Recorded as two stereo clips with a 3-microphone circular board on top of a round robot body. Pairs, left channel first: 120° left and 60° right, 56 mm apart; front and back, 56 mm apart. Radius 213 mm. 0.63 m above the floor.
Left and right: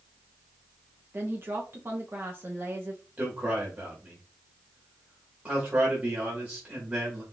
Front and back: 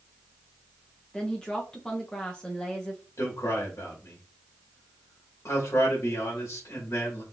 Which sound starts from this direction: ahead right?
A woman speaking, at 1.1 s.